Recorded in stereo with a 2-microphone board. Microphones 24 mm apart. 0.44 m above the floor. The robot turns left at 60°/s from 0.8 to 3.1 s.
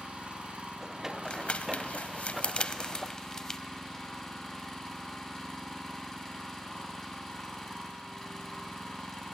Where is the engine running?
60° right, 2.5 m; by 9.3 s 165° left, 2.5 m.